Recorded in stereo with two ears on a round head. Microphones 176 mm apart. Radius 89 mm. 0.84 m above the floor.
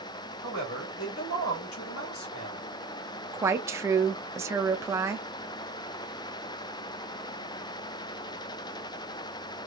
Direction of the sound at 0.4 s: 80° left.